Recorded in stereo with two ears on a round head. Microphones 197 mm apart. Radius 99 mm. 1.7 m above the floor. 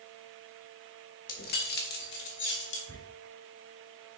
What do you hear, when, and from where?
1.3 s keys jangling: 40° left (ahead or behind), 1.2 m; by 2.8 s 55° left (ahead or behind), 2 m
2.9 s a squeak: 15° left (ahead or behind), 3.5 m